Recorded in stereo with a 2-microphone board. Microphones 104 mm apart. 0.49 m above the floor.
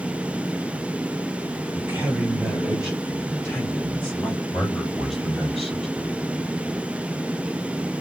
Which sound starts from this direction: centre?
A man speaking, at 4.5 s.